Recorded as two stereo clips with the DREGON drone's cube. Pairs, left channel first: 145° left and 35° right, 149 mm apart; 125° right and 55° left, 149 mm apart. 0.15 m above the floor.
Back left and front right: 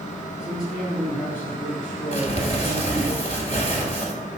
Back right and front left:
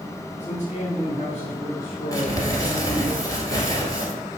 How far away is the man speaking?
About 2.5 m.